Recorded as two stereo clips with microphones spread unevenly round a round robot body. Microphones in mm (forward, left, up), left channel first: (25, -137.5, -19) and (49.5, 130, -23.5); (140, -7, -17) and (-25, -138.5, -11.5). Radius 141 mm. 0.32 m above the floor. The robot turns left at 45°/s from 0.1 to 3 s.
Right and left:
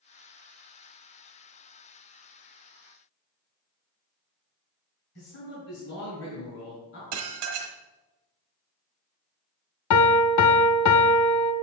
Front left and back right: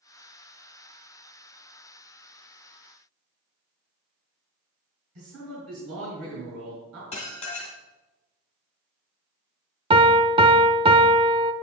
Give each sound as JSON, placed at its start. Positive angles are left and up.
{"t": 5.2, "sound": "a man speaking", "azimuth_deg": -135, "distance_m": 3.5}
{"t": 7.1, "sound": "dishes clattering", "azimuth_deg": 105, "distance_m": 1.3}
{"t": 9.9, "sound": "a piano", "azimuth_deg": -75, "distance_m": 0.8}